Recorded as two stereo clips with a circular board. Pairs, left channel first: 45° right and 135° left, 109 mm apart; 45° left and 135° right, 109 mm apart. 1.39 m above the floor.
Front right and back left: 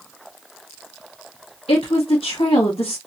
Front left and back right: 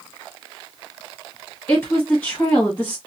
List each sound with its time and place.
1.7 s a woman speaking: 30° right, 1.6 m